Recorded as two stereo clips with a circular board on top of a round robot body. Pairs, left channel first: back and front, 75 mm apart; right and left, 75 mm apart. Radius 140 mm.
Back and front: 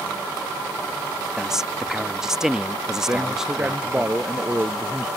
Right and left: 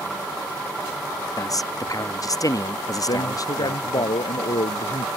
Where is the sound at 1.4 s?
80° right.